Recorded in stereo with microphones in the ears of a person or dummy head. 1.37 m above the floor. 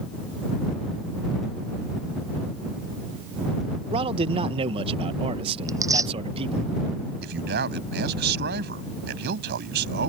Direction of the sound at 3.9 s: 30° right (ahead or behind).